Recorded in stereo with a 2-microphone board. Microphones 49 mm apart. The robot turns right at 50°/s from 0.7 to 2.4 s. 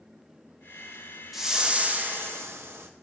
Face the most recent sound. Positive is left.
turn(degrees=-125)